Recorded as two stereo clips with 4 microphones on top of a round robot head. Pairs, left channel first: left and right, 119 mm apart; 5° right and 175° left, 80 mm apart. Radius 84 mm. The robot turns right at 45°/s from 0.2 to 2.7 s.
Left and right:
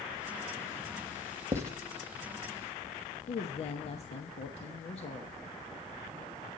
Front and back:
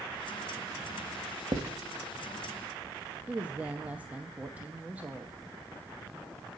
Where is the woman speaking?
105° left, 0.9 m.